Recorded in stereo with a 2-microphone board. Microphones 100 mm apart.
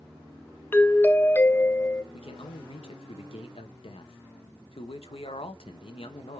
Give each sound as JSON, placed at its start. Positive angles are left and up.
{"t": 0.7, "sound": "a doorbell", "side_deg": 20, "distance_m": 0.6}
{"t": 2.1, "sound": "a man speaking", "side_deg": 75, "distance_m": 1.1}